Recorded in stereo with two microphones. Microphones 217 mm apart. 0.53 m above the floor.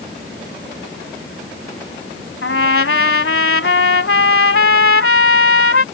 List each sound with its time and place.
2.4 s a trumpet: 80° left